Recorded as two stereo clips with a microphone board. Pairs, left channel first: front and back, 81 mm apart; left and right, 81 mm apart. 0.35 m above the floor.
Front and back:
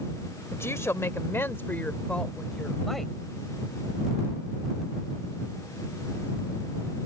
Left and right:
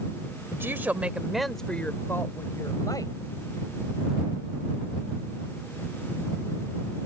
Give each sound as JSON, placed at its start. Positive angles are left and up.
{"t": 0.5, "sound": "a woman speaking", "azimuth_deg": -45}